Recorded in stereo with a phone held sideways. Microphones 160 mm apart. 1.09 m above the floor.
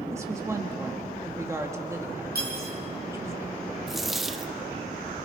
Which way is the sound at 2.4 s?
75° right (ahead or behind).